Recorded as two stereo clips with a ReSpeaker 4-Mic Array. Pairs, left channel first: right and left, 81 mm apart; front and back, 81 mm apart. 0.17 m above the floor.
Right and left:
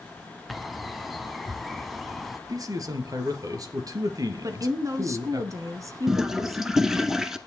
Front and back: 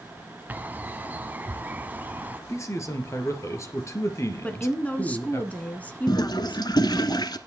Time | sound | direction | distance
0.5 | a bird | straight behind | 1.1 m
2.5 | a man speaking | 50° left | 3 m
4.4 | a woman speaking | 65° left | 1.8 m
6.1 | a toilet flushing | 5° left | 1.2 m